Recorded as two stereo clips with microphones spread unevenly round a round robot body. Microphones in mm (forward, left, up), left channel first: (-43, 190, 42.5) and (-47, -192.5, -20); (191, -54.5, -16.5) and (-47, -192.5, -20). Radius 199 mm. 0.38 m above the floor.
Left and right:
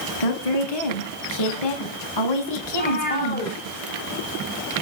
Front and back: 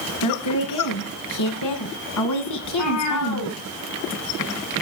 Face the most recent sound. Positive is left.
turn(degrees=20)